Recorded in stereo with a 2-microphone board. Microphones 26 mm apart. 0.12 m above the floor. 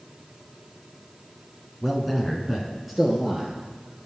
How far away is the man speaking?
About 1.2 m.